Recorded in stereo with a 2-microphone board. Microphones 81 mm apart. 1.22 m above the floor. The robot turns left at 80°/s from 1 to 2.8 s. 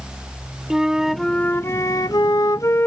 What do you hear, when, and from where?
0.7 s a flute: 170° right; by 2.9 s 45° left